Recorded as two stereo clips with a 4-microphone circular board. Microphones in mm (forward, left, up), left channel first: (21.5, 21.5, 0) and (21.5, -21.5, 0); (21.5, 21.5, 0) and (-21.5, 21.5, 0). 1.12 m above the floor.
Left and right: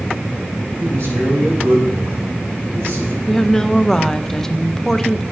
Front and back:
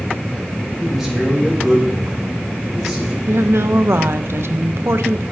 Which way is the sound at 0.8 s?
90° right.